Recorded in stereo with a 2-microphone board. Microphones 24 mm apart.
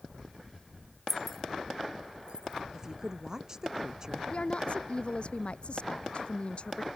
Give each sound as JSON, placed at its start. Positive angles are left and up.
{"t": 1.1, "sound": "keys jangling", "side_deg": 15}
{"t": 2.7, "sound": "a woman speaking", "side_deg": -25}
{"t": 4.3, "sound": "a woman speaking", "side_deg": 50}